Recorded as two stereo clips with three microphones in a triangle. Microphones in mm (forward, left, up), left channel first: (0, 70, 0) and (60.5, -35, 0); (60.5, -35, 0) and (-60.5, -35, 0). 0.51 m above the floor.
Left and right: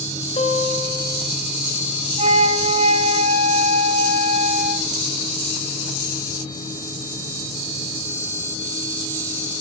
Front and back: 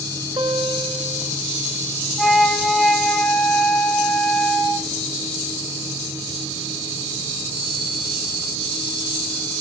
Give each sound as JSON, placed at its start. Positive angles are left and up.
{"t": 0.4, "sound": "a guitar", "azimuth_deg": 135, "distance_m": 1.9}
{"t": 2.2, "sound": "a flute", "azimuth_deg": -85, "distance_m": 2.0}